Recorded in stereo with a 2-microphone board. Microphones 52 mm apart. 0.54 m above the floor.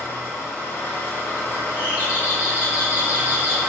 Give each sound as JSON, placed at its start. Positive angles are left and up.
{"t": 0.0, "sound": "an engine running", "side_deg": 45, "distance_m": 1.4}
{"t": 1.8, "sound": "a doorbell", "side_deg": -20, "distance_m": 1.5}